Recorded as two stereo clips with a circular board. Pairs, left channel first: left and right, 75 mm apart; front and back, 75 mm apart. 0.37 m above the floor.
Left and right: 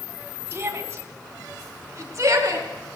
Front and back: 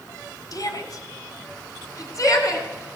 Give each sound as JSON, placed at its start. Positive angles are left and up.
{"t": 0.5, "sound": "a shout", "azimuth_deg": -35, "distance_m": 3.0}